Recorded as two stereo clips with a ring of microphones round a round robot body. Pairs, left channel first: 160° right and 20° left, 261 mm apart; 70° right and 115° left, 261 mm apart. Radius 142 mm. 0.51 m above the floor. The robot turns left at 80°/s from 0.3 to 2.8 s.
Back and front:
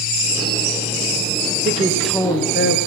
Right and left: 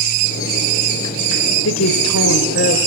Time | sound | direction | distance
1.6 | a woman speaking | 35° right | 3 m